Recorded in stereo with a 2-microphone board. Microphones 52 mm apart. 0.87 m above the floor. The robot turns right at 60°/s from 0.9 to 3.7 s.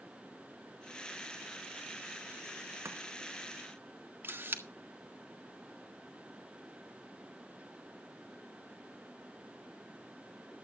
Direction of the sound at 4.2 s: 45° right (ahead or behind).